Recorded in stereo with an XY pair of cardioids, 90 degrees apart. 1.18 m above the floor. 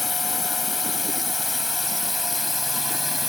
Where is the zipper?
No zipper in this recording.